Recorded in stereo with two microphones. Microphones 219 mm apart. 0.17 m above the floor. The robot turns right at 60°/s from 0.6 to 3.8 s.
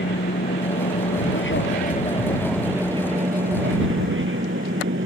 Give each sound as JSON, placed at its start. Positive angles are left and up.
{"t": 0.0, "sound": "an aircraft", "azimuth_deg": 60}